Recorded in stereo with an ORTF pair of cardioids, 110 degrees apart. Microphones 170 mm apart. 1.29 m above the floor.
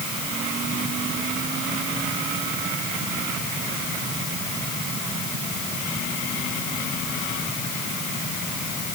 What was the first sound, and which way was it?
Only background noise.